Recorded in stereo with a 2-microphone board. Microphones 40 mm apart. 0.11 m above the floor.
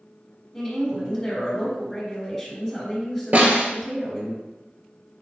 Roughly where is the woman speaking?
Centre.